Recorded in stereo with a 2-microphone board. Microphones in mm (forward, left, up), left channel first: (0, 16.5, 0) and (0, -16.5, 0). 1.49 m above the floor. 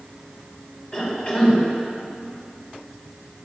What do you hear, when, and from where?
0.9 s a cough: 35° left (ahead or behind), 5 m